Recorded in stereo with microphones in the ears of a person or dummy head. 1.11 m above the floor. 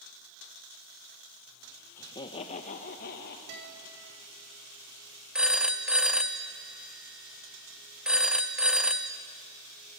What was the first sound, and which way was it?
Laughter, 20° left (ahead or behind).